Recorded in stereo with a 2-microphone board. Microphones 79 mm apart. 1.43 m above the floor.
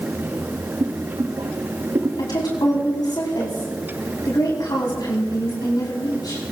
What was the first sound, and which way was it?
Boiling, 70° right (ahead or behind).